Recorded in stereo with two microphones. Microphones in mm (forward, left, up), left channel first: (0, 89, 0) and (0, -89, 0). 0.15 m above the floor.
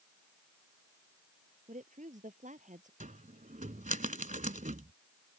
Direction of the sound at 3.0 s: 45° right (ahead or behind).